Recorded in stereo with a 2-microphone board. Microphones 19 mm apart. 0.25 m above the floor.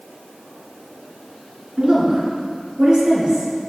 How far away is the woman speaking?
About 3 m.